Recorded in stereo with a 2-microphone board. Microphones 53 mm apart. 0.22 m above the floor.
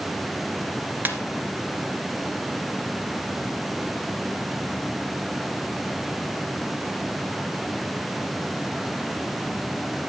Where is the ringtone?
30° right (ahead or behind), 2 m.